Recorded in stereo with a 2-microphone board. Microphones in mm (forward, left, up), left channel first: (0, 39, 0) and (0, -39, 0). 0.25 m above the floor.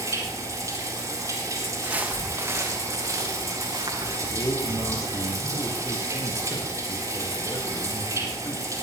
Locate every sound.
0.0 s running water: 40° right (ahead or behind), 4 m
1.8 s footsteps: 15° right (ahead or behind), 3 m; by 4.2 s 60° right (ahead or behind), 4.5 m
4.3 s a man speaking: 50° left (ahead or behind), 3.5 m